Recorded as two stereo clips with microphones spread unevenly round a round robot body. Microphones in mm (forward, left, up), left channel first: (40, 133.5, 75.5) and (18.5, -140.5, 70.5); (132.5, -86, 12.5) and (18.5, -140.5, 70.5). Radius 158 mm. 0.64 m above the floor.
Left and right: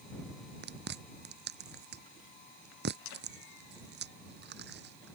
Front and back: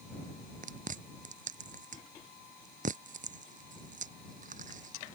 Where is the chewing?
150° right.